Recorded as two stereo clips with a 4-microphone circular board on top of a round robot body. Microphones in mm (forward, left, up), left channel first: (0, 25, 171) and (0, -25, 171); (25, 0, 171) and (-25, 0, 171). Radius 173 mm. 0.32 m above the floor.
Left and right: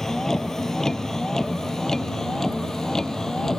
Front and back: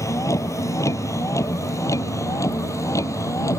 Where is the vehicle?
10° left.